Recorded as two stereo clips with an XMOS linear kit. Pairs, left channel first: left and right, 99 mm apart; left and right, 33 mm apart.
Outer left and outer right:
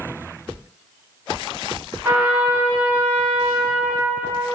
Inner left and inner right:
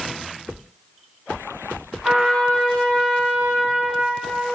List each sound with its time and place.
2.0 s a trumpet: 25° right (ahead or behind), 1.4 m